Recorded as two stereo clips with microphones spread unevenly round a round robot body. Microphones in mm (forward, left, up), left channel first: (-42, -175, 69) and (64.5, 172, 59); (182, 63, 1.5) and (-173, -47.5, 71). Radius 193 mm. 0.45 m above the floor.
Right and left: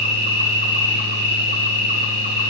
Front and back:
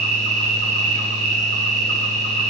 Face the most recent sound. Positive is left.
turn(degrees=120)